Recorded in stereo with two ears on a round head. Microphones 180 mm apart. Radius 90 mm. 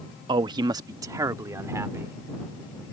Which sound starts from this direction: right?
A man speaking, at 0.3 s.